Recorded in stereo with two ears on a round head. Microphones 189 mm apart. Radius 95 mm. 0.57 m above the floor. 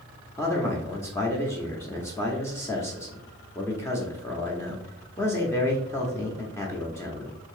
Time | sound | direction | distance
0.4 | a man speaking | 15° left (ahead or behind) | 0.8 m